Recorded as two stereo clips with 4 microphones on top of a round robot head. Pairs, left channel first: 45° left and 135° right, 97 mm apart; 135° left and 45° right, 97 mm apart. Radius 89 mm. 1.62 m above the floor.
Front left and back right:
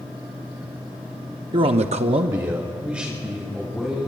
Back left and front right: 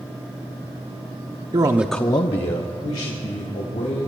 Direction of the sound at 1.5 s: 95° right.